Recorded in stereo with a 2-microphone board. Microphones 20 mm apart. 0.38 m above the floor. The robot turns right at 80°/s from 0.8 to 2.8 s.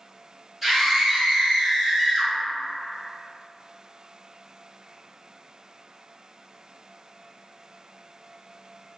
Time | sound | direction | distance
0.6 | a scream | 170° right | 1.8 m